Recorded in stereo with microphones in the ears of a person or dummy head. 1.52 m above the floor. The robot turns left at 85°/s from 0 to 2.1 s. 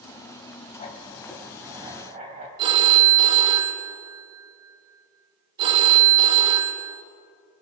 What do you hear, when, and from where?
0.8 s writing: 55° left, 2 m; by 2.5 s 55° right, 2 m
2.6 s a phone ringing: 30° right (ahead or behind), 1.1 m